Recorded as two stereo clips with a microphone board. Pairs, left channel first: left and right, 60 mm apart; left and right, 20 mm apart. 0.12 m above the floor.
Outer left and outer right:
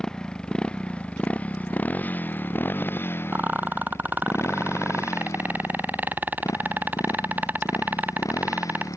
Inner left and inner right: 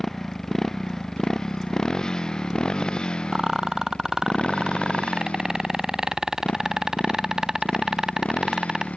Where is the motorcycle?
10° left (ahead or behind); by 9.0 s 75° left (ahead or behind).